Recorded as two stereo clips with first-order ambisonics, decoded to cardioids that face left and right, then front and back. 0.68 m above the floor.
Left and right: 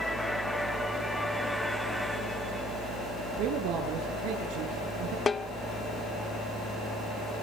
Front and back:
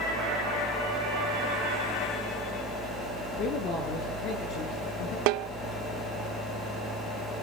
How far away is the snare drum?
About 0.7 m.